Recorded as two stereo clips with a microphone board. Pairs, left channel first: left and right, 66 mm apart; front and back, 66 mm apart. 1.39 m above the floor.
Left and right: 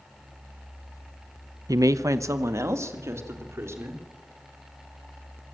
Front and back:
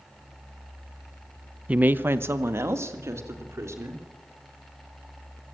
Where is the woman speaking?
110° right, 0.6 m; by 4.0 s 135° right, 4 m.